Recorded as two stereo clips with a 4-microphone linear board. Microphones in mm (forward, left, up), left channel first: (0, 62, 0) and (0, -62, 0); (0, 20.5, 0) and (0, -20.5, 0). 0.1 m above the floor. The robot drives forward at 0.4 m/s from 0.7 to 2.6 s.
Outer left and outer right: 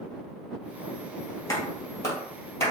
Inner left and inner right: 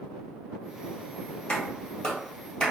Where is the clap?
25° left (ahead or behind), 1.9 m; by 2.7 s 20° left (ahead or behind), 2 m.